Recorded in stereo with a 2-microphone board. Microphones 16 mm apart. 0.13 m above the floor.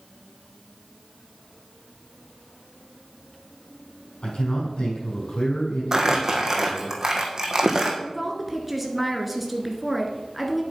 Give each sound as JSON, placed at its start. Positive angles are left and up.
{"t": 4.2, "sound": "a man speaking", "side_deg": 70, "distance_m": 6.0}
{"t": 5.9, "sound": "crumpling", "side_deg": -35, "distance_m": 1.9}
{"t": 8.0, "sound": "a woman speaking", "side_deg": 0, "distance_m": 1.9}